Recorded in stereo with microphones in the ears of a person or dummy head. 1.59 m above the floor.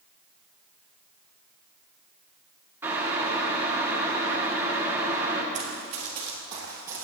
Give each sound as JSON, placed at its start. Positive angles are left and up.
{"t": 2.8, "sound": "boiling", "side_deg": -15, "distance_m": 1.5}
{"t": 5.5, "sound": "running footsteps", "side_deg": -45, "distance_m": 2.5}